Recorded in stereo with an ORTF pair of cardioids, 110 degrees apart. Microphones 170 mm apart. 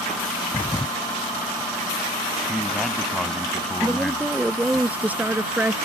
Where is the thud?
10° left.